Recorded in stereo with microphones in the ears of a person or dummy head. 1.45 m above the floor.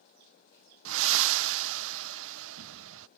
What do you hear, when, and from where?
0.8 s breathing: 75° right (ahead or behind)